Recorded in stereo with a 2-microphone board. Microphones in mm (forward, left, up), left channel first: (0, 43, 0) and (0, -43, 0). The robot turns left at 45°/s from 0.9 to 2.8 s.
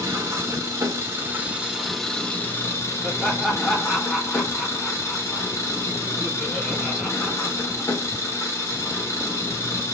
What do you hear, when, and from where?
0.0 s an engine running: 135° right, 1.0 m; by 9.9 s 140° left, 1.0 m
3.0 s laughter: 5° right (ahead or behind), 0.8 m